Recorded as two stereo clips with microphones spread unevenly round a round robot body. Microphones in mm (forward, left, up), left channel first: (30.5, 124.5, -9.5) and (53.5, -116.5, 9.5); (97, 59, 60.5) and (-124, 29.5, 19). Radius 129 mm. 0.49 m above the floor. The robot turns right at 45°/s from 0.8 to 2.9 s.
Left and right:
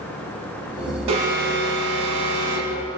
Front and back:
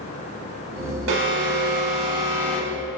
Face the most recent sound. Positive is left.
turn(degrees=-70)